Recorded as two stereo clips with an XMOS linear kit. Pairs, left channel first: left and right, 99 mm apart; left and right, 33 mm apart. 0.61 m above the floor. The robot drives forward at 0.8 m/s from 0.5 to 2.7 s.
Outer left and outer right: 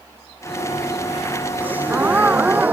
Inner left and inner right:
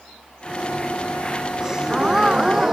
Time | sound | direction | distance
1.6 | a gasp | 15° right (ahead or behind) | ?